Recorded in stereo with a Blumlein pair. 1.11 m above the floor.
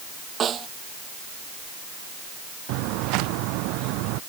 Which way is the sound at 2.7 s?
40° right.